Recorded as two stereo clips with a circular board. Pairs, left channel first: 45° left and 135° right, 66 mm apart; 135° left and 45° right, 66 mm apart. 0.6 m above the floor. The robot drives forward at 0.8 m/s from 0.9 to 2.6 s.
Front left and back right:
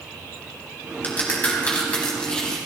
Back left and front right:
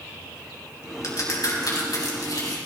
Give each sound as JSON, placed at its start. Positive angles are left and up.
{"t": 1.0, "sound": "a crack", "azimuth_deg": 105, "distance_m": 4.0}